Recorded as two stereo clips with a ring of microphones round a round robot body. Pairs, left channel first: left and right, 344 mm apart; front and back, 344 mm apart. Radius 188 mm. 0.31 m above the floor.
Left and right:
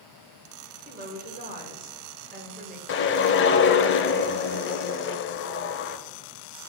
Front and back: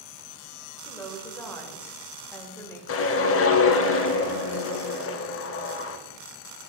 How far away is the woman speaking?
About 1.5 m.